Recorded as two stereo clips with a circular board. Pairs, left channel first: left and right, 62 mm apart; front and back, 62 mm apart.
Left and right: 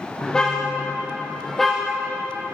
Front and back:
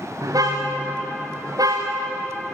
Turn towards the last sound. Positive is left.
turn(degrees=180)